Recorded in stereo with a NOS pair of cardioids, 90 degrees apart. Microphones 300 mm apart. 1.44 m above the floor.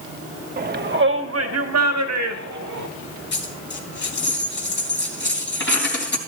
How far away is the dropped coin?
About 3.5 m.